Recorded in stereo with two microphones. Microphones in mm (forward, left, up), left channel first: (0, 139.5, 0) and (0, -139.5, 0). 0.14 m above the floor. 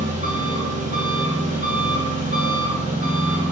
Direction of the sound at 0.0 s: 30° right (ahead or behind).